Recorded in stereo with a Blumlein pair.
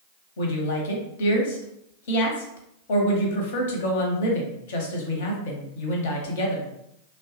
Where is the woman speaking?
55° left, 0.8 m.